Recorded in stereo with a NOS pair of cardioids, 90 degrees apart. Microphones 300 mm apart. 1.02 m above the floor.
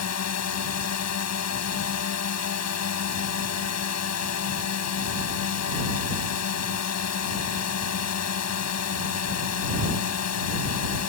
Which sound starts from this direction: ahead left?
A drone, at 0.0 s.